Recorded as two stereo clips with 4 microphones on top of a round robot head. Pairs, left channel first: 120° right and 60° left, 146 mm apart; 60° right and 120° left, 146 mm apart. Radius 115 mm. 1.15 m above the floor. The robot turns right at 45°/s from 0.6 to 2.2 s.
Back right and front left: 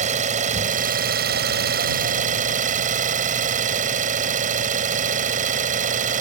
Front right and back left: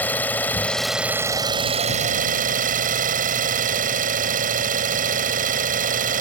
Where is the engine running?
20° left; by 6.2 s 90° left.